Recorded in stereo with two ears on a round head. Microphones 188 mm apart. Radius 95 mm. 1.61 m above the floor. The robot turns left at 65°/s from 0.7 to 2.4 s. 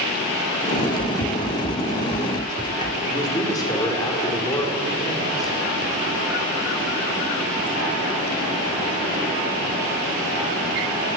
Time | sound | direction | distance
0.7 | running footsteps | 45° left (ahead or behind) | 2 m
3.0 | a man speaking | 20° left (ahead or behind) | 4 m